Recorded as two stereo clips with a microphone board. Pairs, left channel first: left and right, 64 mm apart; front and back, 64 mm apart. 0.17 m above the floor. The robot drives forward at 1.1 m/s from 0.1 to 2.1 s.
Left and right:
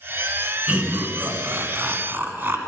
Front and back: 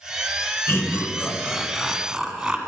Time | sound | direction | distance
0.7 | laughter | 30° right | 1.9 m